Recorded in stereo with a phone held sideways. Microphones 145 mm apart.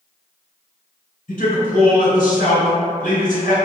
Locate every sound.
1.3 s a man speaking: 60° left (ahead or behind), 0.9 m